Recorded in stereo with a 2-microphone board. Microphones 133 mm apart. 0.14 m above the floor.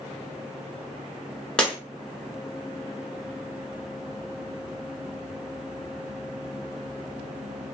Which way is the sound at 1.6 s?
5° left (ahead or behind).